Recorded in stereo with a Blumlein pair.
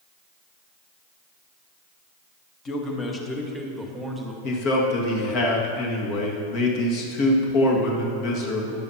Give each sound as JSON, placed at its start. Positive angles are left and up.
{"t": 2.6, "sound": "a man speaking", "azimuth_deg": 25, "distance_m": 1.6}
{"t": 4.4, "sound": "a man speaking", "azimuth_deg": 40, "distance_m": 1.9}